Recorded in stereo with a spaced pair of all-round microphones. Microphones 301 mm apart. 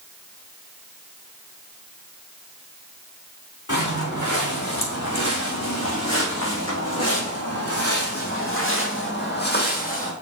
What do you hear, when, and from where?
3.7 s footsteps: 70° left (ahead or behind), 4.5 m; by 10.1 s 25° left (ahead or behind), 2 m